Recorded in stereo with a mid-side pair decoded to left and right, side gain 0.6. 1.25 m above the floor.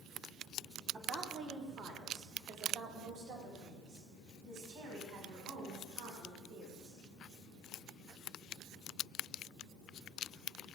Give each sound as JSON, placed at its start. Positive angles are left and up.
{"t": 0.9, "sound": "a woman speaking", "azimuth_deg": -40, "distance_m": 2.5}